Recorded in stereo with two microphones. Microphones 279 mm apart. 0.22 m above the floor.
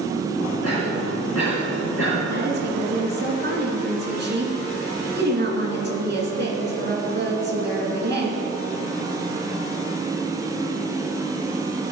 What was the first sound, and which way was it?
A cough, 60° left (ahead or behind).